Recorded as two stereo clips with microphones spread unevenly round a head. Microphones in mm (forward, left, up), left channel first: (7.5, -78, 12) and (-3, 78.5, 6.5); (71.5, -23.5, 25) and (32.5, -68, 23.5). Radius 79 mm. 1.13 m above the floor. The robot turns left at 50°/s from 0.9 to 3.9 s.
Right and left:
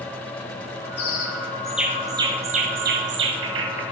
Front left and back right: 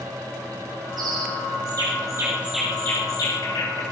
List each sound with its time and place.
1.0 s a bird: 140° right, 7.5 m; by 3.8 s 80° left, 7.5 m